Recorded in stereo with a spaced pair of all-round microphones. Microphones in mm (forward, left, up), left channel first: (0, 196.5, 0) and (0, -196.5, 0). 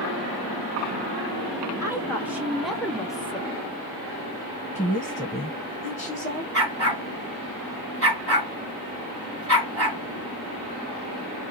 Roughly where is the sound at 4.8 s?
Centre.